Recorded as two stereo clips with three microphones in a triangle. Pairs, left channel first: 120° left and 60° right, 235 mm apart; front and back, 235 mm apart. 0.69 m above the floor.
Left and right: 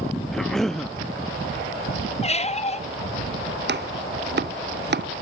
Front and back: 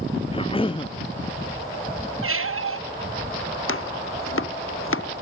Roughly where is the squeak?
Behind.